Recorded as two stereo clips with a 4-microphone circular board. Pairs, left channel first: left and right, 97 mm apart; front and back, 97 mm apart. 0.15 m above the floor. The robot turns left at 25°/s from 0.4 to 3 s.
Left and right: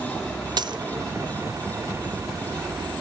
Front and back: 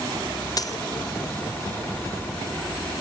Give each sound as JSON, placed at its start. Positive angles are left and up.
{"t": 0.6, "sound": "a dropped coin", "azimuth_deg": -50, "distance_m": 0.5}